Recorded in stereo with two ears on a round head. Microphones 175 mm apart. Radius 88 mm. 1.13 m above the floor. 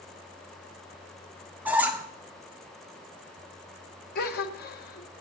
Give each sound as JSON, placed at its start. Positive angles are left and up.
{"t": 1.6, "sound": "a squeak", "side_deg": -10, "distance_m": 0.9}
{"t": 4.2, "sound": "a gasp", "side_deg": 50, "distance_m": 0.9}